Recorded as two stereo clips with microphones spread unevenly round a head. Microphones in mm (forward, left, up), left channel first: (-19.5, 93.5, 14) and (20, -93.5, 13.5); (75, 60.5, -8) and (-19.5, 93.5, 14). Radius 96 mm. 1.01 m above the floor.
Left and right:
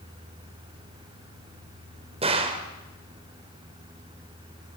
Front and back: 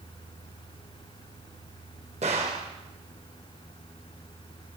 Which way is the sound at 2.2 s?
140° right.